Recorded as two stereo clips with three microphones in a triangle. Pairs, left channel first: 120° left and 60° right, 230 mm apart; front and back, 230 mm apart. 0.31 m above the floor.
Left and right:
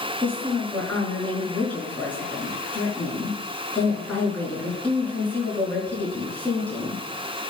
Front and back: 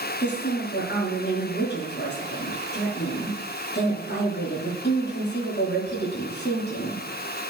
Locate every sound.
0.2 s a woman speaking: 35° left, 4.5 m